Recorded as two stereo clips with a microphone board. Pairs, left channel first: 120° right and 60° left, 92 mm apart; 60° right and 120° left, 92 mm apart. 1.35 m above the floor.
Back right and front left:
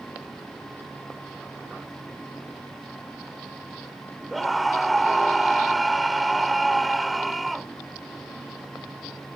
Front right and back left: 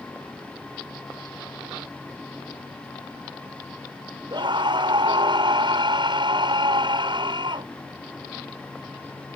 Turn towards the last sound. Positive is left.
turn(degrees=150)